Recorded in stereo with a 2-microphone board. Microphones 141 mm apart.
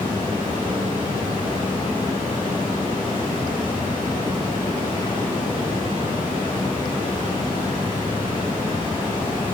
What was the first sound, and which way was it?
Running water, 35° left (ahead or behind).